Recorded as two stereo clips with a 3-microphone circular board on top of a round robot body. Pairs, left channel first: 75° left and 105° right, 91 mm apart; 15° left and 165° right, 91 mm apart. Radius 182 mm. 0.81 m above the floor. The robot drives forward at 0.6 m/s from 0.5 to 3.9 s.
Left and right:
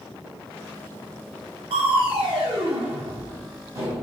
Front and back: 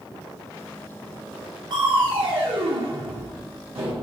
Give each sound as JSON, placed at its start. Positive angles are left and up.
{"t": 1.7, "sound": "crushing", "azimuth_deg": -125, "distance_m": 0.6}